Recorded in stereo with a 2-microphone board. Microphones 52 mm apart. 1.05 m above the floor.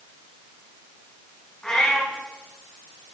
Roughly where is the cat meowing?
Centre.